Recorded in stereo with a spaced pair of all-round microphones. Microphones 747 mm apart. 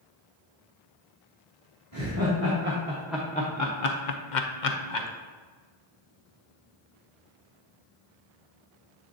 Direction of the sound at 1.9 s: 25° right (ahead or behind).